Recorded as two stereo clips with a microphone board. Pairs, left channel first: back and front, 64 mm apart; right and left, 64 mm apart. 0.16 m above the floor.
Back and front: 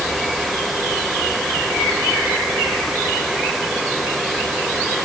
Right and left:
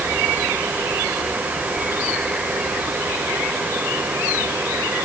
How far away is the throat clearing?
I don't hear throat clearing.